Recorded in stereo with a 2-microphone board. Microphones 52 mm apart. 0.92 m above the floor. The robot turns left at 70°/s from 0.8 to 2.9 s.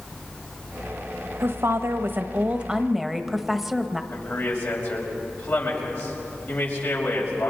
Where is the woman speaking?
65° right, 1.1 m; by 4.0 s 170° right, 1.1 m.